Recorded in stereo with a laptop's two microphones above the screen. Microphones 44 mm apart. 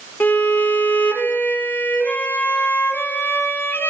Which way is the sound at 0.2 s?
50° left (ahead or behind).